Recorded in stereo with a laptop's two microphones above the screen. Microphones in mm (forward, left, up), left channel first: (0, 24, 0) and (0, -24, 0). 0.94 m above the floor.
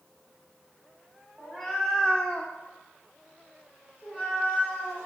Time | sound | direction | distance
1.4 | a cat meowing | 5° left (ahead or behind) | 0.7 m